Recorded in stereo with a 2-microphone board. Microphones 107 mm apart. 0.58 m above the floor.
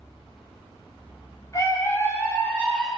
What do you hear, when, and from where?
1.5 s a scream: 35° left (ahead or behind), 3 m; by 2.9 s 5° left (ahead or behind), 3.5 m